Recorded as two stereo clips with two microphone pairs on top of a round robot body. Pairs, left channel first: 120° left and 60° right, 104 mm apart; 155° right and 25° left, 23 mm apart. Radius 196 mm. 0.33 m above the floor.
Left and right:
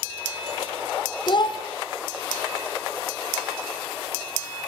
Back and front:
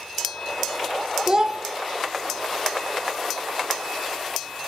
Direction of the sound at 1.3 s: 80° left.